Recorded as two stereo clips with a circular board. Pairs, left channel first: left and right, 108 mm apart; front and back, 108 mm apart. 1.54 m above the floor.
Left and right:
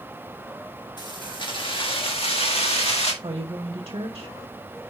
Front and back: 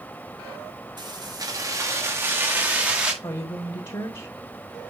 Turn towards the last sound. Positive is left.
turn(degrees=-40)